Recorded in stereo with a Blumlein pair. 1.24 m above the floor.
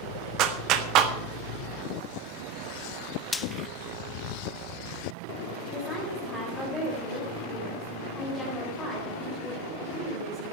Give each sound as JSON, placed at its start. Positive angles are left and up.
{"t": 0.4, "sound": "a clap", "azimuth_deg": -35, "distance_m": 1.2}
{"t": 3.3, "sound": "frying", "azimuth_deg": 10, "distance_m": 0.6}
{"t": 5.7, "sound": "a woman speaking", "azimuth_deg": 5, "distance_m": 5.0}